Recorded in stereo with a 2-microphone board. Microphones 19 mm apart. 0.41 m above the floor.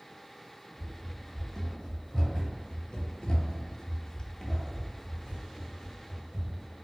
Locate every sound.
0.8 s running footsteps: 20° left (ahead or behind), 1.9 m; by 6.7 s centre (ahead or behind), 1.9 m